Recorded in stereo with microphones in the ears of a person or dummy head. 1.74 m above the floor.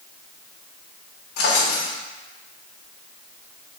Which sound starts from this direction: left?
A drawer, at 1.4 s.